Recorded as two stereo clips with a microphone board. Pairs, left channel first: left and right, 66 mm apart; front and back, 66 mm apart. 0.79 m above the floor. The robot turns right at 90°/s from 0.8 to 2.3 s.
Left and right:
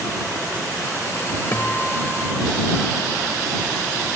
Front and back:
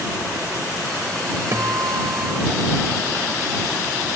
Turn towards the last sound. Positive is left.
turn(degrees=-145)